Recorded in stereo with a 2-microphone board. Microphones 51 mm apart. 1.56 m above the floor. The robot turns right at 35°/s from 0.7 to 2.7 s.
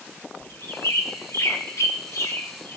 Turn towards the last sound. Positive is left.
turn(degrees=50)  # may be behind; listen again after turning